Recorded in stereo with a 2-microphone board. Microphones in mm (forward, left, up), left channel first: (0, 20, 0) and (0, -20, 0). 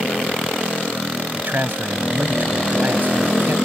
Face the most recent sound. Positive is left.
turn(degrees=-50)  # may be behind; listen again after turning